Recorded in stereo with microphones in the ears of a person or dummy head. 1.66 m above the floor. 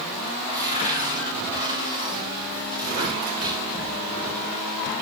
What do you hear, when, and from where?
0.5 s a cupboard door: 40° left (ahead or behind), 5.5 m